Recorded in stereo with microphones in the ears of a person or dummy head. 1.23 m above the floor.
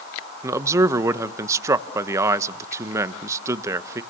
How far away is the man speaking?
About 1.0 m.